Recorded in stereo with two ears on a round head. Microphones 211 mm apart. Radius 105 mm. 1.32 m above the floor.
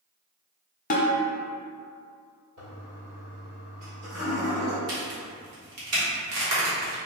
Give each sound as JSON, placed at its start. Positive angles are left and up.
{"t": 0.9, "sound": "a snare drum", "side_deg": 35, "distance_m": 0.7}
{"t": 2.6, "sound": "a toilet flushing", "side_deg": -70, "distance_m": 2.0}
{"t": 4.9, "sound": "a crack", "side_deg": -75, "distance_m": 1.5}